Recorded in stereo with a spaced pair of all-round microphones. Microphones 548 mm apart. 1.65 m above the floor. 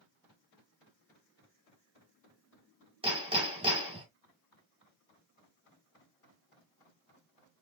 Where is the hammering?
10° right (ahead or behind), 2 m.